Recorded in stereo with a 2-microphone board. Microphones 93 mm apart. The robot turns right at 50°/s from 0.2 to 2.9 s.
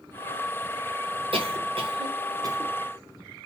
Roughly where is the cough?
Right.